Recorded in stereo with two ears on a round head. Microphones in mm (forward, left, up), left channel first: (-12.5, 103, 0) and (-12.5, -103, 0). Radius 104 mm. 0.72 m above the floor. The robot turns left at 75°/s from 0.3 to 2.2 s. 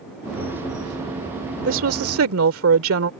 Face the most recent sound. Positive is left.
turn(degrees=-100)